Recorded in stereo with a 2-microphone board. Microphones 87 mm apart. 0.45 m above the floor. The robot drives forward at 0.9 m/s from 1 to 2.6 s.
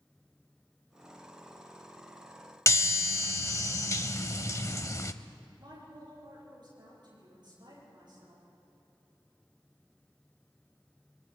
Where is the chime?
35° left (ahead or behind), 0.7 m.